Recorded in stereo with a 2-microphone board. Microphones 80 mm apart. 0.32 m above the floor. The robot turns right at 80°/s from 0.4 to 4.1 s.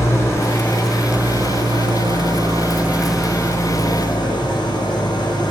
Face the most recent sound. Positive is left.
turn(degrees=75)